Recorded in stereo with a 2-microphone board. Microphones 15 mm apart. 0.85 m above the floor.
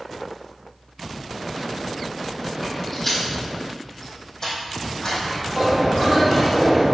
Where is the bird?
20° right (ahead or behind), 3 m.